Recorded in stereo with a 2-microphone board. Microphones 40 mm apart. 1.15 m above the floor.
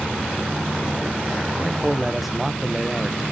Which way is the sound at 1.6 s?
5° right (ahead or behind).